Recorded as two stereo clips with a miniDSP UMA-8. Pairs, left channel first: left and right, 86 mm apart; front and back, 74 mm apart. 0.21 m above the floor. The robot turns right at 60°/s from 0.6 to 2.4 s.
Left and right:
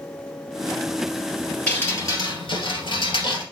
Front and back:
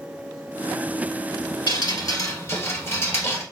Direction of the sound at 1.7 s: 15° left.